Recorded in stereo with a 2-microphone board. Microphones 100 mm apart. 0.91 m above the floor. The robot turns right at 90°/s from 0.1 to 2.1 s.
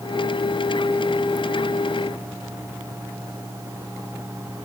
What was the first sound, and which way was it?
Only background noise.